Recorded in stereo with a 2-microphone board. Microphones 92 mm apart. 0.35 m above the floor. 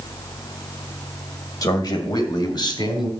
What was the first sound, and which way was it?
A man speaking, 45° left (ahead or behind).